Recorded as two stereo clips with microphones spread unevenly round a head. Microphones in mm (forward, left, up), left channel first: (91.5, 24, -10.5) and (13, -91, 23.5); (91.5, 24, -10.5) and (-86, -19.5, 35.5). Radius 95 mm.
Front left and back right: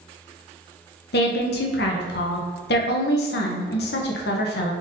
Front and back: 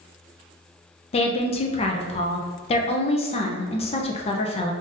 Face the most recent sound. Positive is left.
turn(degrees=80)